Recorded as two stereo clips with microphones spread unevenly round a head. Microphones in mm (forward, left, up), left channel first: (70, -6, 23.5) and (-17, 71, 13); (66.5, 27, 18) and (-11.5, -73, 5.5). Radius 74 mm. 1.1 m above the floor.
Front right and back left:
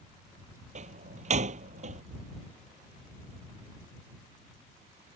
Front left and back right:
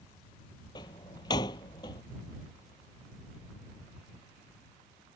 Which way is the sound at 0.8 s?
115° left.